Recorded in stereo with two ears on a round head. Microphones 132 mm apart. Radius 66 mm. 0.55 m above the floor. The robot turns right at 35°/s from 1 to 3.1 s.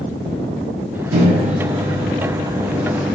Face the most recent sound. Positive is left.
turn(degrees=-10)